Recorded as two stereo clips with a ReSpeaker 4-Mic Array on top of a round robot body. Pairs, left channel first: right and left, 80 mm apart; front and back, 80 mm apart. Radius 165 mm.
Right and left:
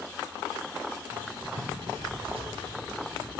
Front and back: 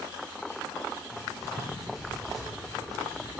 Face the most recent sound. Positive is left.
turn(degrees=90)